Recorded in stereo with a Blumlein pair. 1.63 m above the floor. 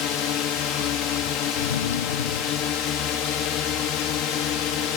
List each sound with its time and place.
0.0 s a drone: 35° left
1.6 s a drawer: 65° left